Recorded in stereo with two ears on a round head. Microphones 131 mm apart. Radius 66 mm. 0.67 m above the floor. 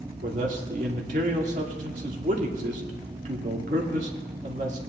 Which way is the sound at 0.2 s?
55° right (ahead or behind).